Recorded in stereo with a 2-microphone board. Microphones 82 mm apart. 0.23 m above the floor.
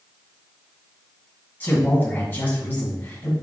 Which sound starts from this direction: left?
A man speaking, at 1.6 s.